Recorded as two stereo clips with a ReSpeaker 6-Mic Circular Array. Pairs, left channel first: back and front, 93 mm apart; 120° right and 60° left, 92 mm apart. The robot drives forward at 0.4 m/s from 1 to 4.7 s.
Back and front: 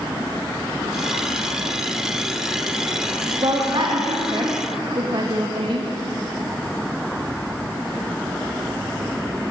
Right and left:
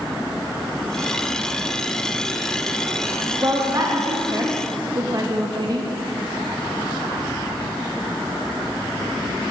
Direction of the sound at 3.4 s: 15° left.